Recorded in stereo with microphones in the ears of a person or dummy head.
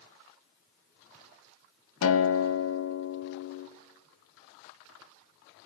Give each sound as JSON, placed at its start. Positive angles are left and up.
{"t": 2.0, "sound": "a guitar", "side_deg": 80, "distance_m": 1.3}